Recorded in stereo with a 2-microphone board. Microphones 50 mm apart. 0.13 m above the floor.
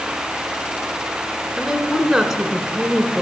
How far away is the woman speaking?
About 1.1 m.